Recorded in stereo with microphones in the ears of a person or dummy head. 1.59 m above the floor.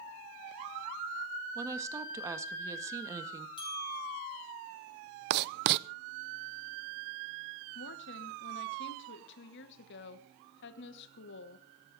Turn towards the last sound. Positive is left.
turn(degrees=65)  # may be behind; listen again after turning